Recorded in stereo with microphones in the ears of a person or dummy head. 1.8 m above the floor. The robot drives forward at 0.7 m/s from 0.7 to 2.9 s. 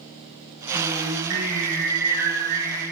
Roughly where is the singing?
Right.